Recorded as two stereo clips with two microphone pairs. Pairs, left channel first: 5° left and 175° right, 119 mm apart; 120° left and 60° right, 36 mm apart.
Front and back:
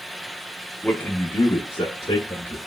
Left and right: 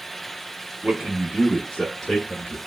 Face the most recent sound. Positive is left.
turn(degrees=45)